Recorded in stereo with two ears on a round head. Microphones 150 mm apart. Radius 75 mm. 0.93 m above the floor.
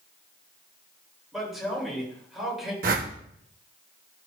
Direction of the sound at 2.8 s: 55° right (ahead or behind).